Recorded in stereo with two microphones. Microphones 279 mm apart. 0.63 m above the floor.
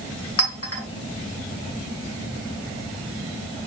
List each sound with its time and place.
0.4 s a clink: 55° left (ahead or behind), 2.5 m